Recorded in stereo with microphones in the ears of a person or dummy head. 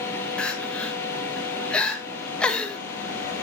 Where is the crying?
5° left (ahead or behind), 1.4 m.